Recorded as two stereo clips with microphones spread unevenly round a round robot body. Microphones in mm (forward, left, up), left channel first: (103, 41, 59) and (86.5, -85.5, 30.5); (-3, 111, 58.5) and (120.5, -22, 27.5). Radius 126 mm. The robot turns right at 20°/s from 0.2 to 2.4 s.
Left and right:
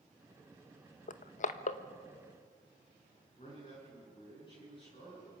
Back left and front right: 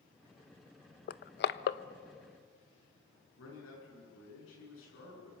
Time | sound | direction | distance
1.1 | crushing | 105° left | 0.7 m
3.4 | a man speaking | 150° left | 9 m